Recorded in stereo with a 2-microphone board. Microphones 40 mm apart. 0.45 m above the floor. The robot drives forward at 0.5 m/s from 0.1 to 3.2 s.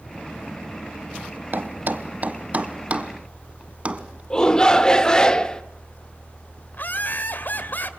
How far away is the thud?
About 1.0 m.